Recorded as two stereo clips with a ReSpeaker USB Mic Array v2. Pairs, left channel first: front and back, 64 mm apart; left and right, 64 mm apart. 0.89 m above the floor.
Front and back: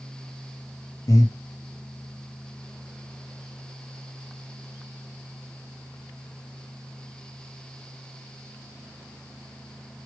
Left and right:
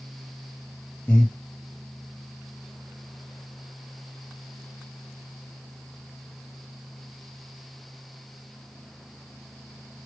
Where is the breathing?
20° left, 1.0 m.